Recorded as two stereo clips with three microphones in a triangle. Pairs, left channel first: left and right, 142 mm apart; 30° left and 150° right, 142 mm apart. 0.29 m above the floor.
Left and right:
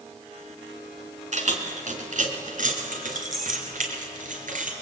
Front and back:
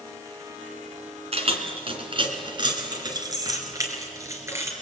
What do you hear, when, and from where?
1.3 s keys jangling: 115° right, 2.5 m; by 4.7 s 80° right, 4 m